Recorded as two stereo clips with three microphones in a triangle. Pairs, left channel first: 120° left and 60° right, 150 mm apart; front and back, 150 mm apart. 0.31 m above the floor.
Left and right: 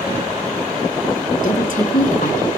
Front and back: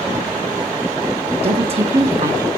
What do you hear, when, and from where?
1.4 s a woman speaking: 135° left, 2.5 m